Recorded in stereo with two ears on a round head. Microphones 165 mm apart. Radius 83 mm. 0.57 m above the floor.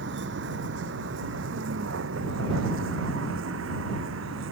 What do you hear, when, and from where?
0.0 s a vehicle: 60° right (ahead or behind); by 4.5 s 70° right (ahead or behind)